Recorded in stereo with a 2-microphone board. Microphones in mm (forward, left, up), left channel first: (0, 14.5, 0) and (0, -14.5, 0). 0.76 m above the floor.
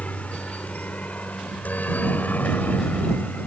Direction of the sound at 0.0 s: 55° left (ahead or behind).